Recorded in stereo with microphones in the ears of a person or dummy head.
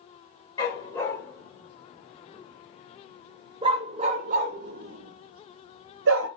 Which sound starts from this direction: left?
A dog barking, at 0.6 s.